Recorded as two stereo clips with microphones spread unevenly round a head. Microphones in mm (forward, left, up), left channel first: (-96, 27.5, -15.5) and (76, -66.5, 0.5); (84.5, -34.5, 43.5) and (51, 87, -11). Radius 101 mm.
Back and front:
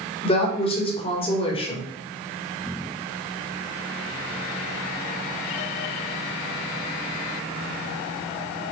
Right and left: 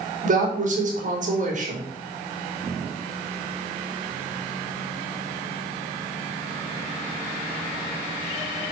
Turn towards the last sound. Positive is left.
turn(degrees=85)